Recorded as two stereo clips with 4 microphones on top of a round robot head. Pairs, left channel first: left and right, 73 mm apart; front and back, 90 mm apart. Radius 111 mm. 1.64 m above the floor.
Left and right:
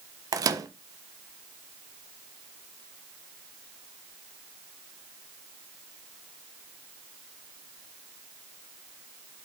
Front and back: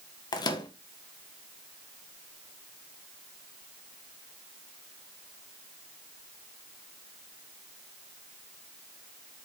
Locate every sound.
0.3 s a microwave: 50° right, 1.4 m